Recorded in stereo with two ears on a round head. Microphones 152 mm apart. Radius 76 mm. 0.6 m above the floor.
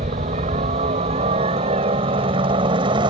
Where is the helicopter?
45° right (ahead or behind); by 3.1 s 30° right (ahead or behind).